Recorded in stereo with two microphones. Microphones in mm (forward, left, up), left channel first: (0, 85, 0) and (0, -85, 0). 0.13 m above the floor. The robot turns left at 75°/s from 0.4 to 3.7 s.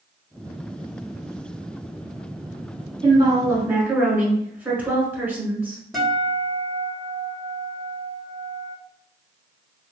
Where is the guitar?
Centre (ahead or behind), 1.2 m.